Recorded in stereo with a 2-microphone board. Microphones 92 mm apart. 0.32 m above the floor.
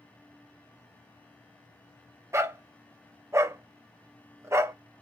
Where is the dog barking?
30° right (ahead or behind), 0.7 m.